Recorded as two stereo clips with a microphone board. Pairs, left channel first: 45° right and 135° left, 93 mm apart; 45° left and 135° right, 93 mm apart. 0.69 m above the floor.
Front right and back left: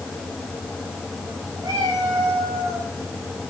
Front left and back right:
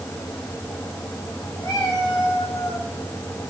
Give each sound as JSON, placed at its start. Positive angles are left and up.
{"t": 1.6, "sound": "a cat meowing", "azimuth_deg": 90, "distance_m": 5.5}